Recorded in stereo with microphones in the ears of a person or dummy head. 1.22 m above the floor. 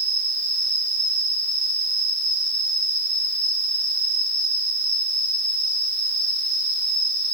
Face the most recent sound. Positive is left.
turn(degrees=-45)  # may be behind; listen again after turning